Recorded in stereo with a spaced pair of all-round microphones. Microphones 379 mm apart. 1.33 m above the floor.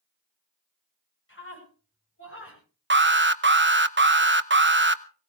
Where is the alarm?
30° right (ahead or behind), 0.7 m.